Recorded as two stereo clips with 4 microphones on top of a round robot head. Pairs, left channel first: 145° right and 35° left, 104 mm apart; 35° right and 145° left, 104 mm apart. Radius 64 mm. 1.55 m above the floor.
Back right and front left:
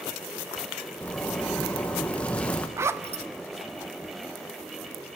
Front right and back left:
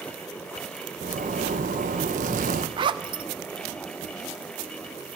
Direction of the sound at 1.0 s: 140° left.